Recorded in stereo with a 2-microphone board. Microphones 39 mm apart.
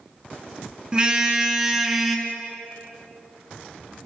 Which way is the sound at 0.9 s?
25° right (ahead or behind).